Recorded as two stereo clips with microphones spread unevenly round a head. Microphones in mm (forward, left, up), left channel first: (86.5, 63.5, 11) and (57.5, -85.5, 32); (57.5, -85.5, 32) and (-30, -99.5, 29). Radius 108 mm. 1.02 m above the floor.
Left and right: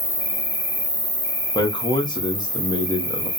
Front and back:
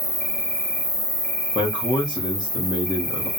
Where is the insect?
55° left, 1.6 m.